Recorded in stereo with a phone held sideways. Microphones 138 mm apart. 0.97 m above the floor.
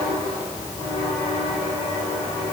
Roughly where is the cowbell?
No cowbell in this recording.